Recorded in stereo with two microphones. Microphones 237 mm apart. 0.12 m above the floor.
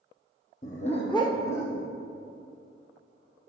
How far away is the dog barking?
About 1.1 m.